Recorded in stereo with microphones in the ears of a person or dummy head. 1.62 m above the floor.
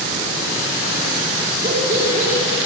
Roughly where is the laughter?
Right.